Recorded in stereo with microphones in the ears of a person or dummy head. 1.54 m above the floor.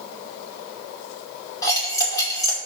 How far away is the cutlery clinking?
About 2.5 m.